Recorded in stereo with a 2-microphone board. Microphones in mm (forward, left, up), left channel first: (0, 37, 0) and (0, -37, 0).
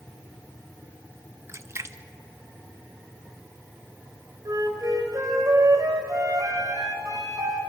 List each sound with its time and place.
1.5 s a splash: 35° right (ahead or behind), 0.6 m
4.5 s a flute: 55° right (ahead or behind), 3 m